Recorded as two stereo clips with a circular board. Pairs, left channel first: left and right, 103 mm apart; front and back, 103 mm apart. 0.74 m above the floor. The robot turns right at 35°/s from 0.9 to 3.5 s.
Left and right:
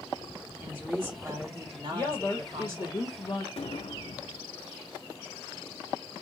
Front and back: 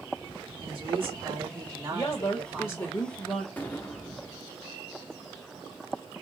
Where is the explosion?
75° left, 0.6 m.